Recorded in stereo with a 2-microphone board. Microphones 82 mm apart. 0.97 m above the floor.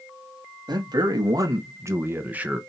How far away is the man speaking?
About 1.4 m.